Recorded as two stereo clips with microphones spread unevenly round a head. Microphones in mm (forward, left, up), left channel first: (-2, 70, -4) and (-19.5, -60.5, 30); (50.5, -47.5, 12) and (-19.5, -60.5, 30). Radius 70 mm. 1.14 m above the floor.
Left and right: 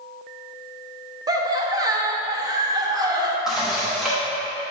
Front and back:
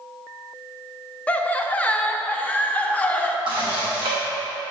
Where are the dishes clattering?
Straight behind, 1.1 m.